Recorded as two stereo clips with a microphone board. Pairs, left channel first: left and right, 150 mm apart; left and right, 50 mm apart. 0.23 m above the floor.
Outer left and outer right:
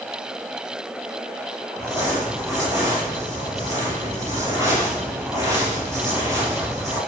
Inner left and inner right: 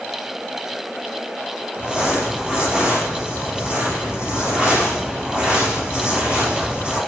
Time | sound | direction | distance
1.8 | crumpling | 20° right (ahead or behind) | 5 m